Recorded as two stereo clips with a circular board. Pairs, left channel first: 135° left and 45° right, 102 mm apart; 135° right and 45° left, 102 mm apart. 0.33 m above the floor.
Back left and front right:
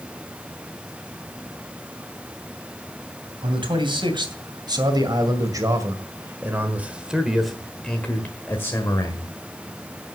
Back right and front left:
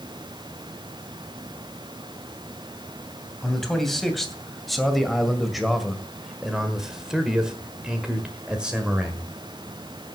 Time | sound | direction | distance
3.4 | a man speaking | 50° right | 2.5 m